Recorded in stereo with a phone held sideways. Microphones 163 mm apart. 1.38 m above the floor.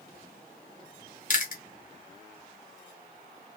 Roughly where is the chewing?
Left.